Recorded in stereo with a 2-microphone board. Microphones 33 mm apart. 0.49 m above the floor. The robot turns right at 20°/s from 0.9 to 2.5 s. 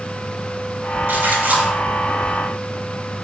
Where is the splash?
80° right, 3 m; by 1.7 s 70° right (ahead or behind), 3 m.